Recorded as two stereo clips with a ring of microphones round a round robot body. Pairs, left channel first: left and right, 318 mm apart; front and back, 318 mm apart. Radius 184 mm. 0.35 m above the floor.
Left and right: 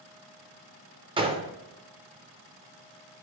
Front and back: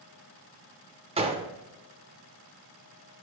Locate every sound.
1.2 s a gunshot: 140° right, 0.5 m